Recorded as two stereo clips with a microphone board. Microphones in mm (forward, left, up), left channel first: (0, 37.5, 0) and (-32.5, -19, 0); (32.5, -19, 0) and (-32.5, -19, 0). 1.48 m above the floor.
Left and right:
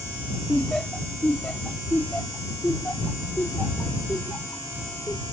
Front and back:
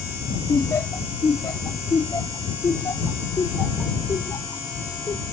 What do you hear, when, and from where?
0.5 s laughter: 25° right; by 5.2 s straight ahead